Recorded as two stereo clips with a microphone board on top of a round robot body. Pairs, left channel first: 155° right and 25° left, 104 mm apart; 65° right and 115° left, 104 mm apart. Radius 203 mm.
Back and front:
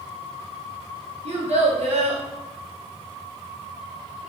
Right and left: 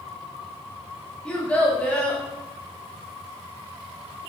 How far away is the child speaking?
About 0.8 m.